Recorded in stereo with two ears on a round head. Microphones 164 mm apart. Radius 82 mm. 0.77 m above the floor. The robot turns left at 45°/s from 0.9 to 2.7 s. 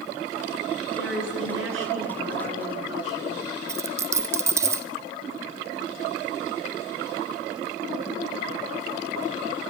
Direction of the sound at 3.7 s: 15° right (ahead or behind).